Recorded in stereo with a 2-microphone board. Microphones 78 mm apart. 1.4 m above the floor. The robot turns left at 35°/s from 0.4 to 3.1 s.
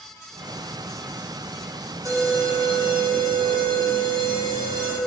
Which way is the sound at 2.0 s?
50° right.